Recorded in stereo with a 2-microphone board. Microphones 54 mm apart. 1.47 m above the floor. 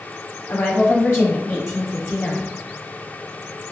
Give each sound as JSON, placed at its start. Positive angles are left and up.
{"t": 0.5, "sound": "a woman speaking", "side_deg": 50, "distance_m": 0.9}